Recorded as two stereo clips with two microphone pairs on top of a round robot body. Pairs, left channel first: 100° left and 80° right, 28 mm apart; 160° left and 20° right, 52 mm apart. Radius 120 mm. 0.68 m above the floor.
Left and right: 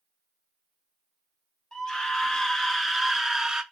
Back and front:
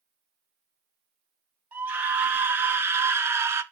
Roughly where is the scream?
Ahead left.